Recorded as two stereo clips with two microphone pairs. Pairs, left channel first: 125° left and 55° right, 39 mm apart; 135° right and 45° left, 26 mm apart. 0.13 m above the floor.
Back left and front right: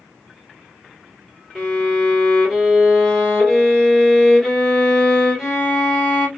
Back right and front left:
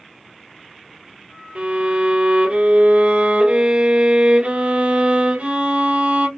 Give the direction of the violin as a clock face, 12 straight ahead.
11 o'clock.